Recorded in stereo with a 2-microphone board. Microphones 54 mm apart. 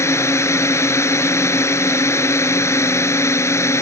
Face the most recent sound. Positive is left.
turn(degrees=60)  # may be behind; listen again after turning